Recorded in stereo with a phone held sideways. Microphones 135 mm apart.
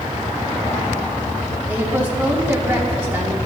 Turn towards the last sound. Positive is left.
turn(degrees=-15)  # may be behind; listen again after turning